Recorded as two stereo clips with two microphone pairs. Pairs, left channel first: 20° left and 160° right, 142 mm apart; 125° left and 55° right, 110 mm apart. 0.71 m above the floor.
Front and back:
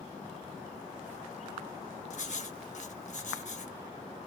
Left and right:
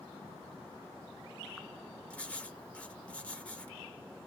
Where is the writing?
45° left, 0.7 m.